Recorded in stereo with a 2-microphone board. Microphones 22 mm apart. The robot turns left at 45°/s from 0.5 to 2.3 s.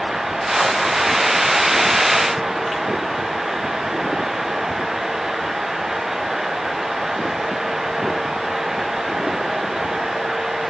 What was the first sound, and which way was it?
Only background noise.